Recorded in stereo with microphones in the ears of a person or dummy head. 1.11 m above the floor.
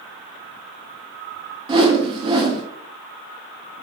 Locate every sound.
1.7 s a whoosh: 30° right (ahead or behind), 0.6 m